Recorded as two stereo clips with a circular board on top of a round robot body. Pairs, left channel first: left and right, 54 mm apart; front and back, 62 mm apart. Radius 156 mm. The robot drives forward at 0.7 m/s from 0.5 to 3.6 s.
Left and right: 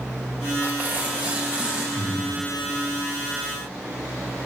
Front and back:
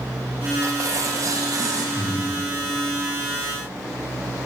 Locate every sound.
0.6 s tearing paper: 145° right, 2 m; by 1.9 s 155° right, 3 m
1.9 s breathing: 65° right, 6.5 m; by 2.2 s 70° right, 6.5 m